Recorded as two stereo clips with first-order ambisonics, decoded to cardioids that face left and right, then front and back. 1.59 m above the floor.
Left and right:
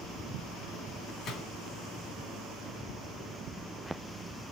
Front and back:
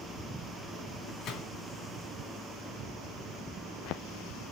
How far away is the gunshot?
About 3 m.